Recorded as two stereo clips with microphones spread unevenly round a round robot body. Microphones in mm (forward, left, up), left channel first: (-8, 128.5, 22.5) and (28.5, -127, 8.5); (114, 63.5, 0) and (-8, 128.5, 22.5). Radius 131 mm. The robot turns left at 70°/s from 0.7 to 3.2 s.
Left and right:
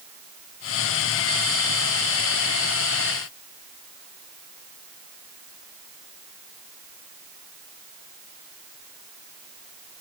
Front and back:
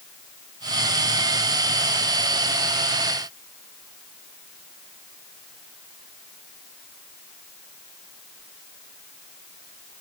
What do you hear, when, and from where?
Only background noise.